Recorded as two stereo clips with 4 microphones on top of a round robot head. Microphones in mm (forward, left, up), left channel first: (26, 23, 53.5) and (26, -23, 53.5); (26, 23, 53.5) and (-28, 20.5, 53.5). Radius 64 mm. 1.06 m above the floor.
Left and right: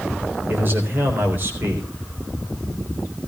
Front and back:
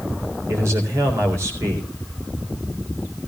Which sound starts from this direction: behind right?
A man speaking, at 0.5 s.